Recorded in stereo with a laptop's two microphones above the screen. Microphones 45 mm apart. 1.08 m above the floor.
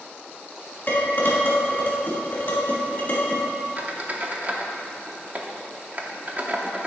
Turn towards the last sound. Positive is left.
turn(degrees=-35)  # may be behind; listen again after turning